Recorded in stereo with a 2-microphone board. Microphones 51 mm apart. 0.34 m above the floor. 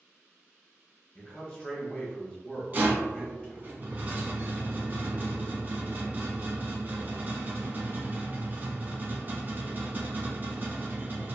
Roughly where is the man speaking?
Left.